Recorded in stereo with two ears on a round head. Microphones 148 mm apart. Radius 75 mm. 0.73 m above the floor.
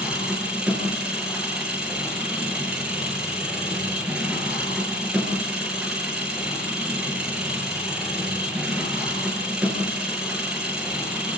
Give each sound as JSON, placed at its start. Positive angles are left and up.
{"t": 0.0, "sound": "an engine running", "side_deg": -5, "distance_m": 8.0}